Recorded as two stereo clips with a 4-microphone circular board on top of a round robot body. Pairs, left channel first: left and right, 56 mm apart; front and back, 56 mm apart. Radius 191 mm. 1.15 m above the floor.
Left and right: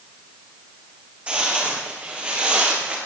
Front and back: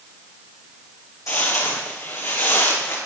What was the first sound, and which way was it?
Footsteps, 25° right.